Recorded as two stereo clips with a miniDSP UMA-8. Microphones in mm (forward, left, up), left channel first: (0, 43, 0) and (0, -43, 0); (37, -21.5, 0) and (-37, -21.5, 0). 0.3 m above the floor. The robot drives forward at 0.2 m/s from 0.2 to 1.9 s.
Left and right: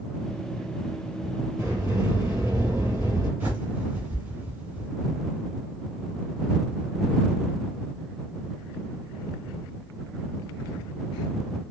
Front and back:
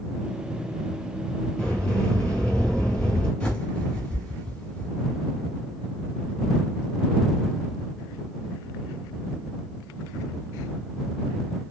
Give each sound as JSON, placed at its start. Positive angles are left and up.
{"t": 1.6, "sound": "a sliding door", "azimuth_deg": -65, "distance_m": 1.8}
{"t": 3.4, "sound": "a bird", "azimuth_deg": -55, "distance_m": 1.2}